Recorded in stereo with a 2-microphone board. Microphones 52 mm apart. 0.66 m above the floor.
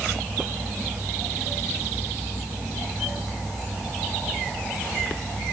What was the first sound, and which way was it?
Only background noise.